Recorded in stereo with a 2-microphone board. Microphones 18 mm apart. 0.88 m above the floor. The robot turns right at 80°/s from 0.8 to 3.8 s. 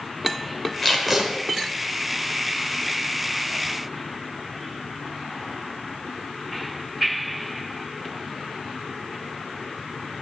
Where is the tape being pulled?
170° left, 2.5 m; by 1.3 s 155° right, 2.5 m.